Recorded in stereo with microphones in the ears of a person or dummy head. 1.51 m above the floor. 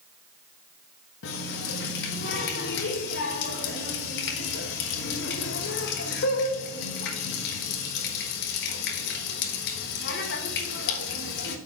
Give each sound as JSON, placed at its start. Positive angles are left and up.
{"t": 1.2, "sound": "a running tap", "side_deg": 60, "distance_m": 1.2}